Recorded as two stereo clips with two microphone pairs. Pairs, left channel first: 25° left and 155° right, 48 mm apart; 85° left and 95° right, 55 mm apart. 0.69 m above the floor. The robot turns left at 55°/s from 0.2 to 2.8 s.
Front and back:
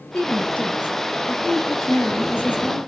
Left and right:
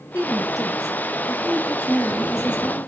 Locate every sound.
0.1 s a woman speaking: 105° left, 4 m; by 2.8 s 35° right, 4 m